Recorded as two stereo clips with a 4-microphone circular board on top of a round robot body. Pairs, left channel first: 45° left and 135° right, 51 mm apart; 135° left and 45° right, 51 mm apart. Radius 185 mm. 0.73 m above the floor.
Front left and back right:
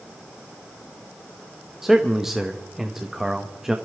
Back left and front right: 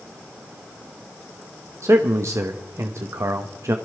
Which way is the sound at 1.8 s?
50° right.